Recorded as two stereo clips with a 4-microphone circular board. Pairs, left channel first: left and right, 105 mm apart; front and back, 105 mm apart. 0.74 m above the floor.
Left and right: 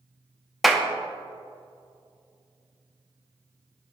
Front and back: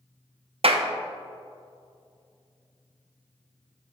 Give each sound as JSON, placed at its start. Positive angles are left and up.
{"t": 0.6, "sound": "a clap", "azimuth_deg": 180, "distance_m": 0.5}